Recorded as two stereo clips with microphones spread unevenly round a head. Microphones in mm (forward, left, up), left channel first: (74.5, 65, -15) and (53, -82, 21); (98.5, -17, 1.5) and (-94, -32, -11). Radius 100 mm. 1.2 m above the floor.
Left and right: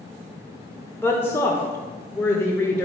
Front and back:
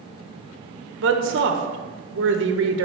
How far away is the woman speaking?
About 1.1 m.